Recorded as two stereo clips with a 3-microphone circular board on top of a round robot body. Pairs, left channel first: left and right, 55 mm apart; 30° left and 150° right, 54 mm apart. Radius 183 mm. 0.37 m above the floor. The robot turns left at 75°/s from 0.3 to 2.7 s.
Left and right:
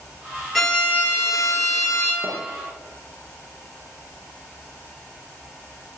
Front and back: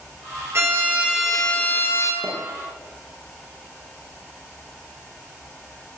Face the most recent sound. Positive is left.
turn(degrees=-170)